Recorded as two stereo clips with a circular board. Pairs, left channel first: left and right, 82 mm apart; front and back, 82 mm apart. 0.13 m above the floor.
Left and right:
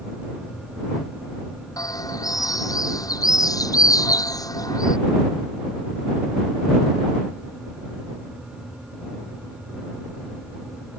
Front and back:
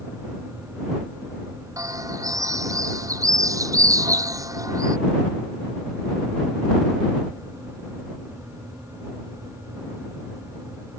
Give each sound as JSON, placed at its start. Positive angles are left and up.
{"t": 1.8, "sound": "a bird", "azimuth_deg": 135}